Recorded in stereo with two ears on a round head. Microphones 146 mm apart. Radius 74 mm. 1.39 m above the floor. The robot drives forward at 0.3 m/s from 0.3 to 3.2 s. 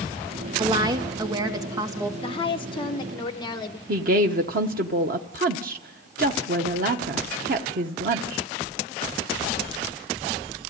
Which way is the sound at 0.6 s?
30° right (ahead or behind).